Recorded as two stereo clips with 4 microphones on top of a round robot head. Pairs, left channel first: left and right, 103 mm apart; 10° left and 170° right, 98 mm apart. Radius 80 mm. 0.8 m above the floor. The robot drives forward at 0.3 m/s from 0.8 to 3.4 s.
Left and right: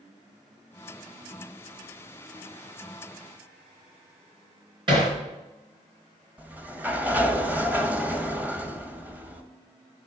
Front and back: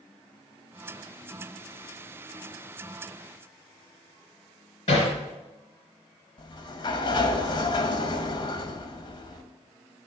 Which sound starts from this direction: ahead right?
Hammering, at 4.9 s.